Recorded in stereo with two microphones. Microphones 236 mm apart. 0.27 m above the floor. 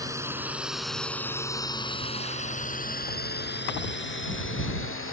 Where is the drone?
15° right (ahead or behind); by 5.1 s 60° left (ahead or behind).